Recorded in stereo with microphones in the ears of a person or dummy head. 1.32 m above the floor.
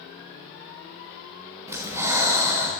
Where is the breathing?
15° right (ahead or behind), 1.2 m.